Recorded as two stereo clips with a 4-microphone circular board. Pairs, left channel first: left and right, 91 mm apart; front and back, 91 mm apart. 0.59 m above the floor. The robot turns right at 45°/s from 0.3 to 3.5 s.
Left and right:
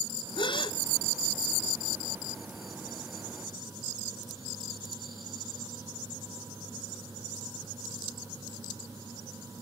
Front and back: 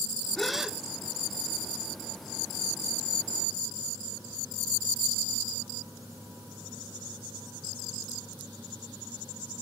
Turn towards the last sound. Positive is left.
turn(degrees=-135)